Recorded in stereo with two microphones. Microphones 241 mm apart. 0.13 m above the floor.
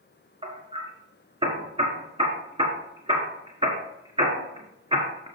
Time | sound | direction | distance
0.4 | hammering | 25° right (ahead or behind) | 1.6 m